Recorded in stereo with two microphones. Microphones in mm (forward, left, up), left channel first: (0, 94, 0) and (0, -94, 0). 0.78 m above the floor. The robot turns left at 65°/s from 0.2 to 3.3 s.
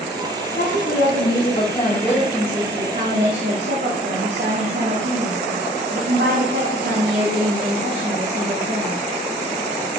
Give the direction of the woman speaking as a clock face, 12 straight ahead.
8 o'clock.